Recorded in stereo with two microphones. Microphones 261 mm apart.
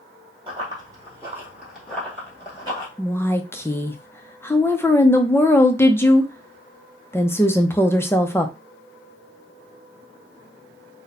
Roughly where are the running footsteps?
Right.